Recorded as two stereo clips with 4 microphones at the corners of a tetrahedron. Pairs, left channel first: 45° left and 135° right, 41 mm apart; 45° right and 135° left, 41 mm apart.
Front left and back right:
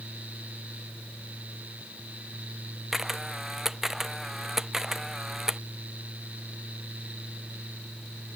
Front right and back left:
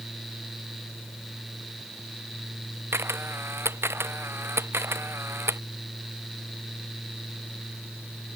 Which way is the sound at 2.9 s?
145° left.